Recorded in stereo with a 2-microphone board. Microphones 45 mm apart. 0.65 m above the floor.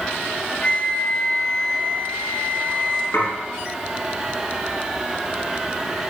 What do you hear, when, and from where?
0.6 s a flute: 25° left (ahead or behind), 0.8 m
3.1 s dishes clattering: 60° left (ahead or behind), 5 m